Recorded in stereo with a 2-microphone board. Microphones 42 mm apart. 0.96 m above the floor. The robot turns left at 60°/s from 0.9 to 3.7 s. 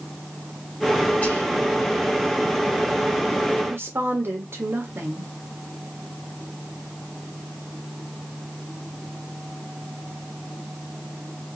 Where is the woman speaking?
60° right (ahead or behind), 1.7 m; by 5.3 s 65° right (ahead or behind), 1.7 m.